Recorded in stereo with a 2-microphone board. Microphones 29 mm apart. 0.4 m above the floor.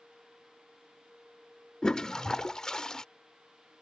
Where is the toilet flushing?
25° left (ahead or behind).